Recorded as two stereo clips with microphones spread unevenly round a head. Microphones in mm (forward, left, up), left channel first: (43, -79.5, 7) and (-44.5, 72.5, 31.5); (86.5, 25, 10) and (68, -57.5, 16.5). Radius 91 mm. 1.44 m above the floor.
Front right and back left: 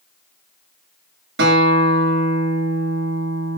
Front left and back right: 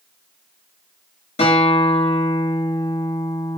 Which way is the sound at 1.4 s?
90° left.